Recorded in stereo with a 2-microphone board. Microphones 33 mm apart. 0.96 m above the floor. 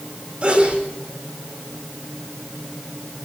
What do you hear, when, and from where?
0.4 s a sneeze: 40° right (ahead or behind), 5.5 m